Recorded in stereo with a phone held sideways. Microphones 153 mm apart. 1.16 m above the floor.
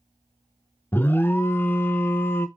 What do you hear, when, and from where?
0.9 s an alarm: 15° left (ahead or behind), 0.6 m